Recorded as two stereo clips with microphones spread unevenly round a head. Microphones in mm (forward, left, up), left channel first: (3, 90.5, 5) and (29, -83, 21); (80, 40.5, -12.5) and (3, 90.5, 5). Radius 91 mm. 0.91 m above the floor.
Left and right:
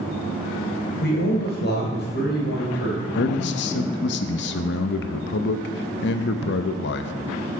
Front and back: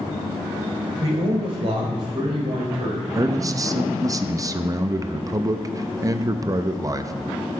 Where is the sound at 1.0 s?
130° left, 3 m; by 3.0 s 135° left, 4.5 m.